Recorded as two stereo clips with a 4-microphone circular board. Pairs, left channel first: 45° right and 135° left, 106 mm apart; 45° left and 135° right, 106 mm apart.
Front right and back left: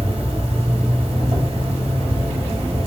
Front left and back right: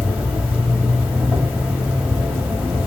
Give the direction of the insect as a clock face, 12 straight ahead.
7 o'clock.